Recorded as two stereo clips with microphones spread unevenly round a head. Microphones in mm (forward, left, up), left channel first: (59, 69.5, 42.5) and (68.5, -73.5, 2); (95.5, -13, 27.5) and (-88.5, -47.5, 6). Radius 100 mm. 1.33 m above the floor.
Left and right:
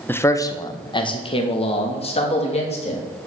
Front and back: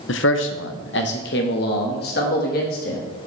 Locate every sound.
0.1 s a man speaking: 25° left, 0.6 m; by 3.0 s 55° left, 1.9 m